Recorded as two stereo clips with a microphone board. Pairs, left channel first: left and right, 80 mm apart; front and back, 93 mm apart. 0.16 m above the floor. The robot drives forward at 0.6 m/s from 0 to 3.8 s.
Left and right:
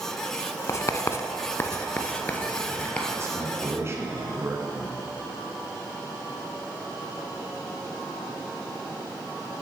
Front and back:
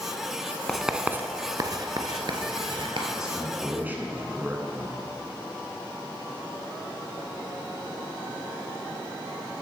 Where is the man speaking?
100° right, 1.5 m; by 5.0 s 120° right, 1.6 m.